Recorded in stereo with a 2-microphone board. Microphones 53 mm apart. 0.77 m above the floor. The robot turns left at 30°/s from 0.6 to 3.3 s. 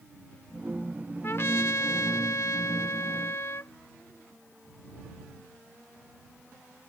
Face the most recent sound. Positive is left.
turn(degrees=65)